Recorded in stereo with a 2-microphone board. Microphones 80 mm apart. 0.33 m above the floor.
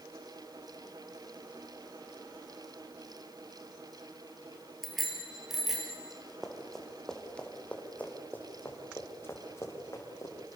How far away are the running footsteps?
About 4 m.